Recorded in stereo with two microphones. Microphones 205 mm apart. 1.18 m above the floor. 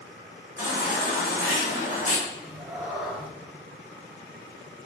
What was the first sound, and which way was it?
A baby crying, 40° left (ahead or behind).